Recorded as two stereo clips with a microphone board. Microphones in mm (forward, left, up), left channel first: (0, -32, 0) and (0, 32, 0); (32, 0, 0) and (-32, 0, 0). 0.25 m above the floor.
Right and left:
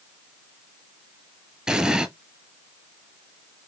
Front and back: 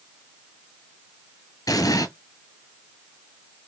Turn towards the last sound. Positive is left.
turn(degrees=15)